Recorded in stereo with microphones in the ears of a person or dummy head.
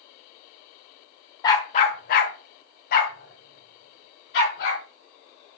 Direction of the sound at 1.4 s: 25° left (ahead or behind).